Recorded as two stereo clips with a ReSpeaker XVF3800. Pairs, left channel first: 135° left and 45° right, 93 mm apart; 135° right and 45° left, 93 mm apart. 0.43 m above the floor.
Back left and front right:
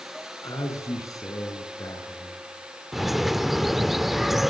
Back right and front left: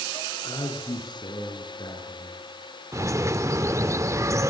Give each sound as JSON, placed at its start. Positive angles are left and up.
{"t": 0.4, "sound": "a man speaking", "azimuth_deg": -175, "distance_m": 6.5}
{"t": 2.9, "sound": "a bird", "azimuth_deg": 40, "distance_m": 0.7}